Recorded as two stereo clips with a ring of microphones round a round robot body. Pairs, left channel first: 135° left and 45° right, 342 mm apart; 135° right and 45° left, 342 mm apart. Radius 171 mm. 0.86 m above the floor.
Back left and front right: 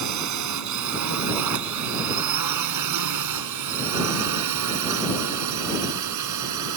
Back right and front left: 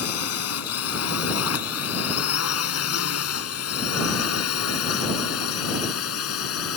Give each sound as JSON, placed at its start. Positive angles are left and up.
{"t": 0.0, "sound": "a drone", "azimuth_deg": -85}